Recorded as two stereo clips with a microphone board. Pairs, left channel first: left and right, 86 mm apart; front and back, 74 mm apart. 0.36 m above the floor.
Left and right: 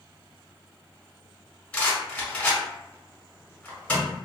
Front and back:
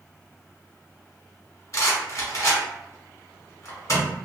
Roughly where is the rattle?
Ahead.